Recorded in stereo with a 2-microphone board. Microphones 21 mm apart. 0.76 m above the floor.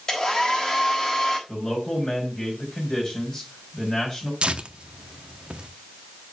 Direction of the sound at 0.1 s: 30° left (ahead or behind).